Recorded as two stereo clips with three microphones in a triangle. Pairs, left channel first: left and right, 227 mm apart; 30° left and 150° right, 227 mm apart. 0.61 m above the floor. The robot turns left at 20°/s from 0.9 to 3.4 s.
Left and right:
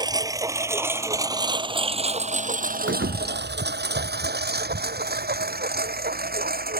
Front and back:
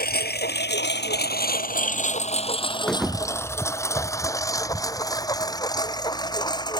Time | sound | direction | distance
0.0 | a lawn mower | 20° right | ?
2.9 | a thud | 55° right | ?